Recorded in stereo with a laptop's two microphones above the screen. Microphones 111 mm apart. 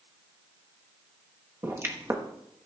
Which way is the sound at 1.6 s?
25° right (ahead or behind).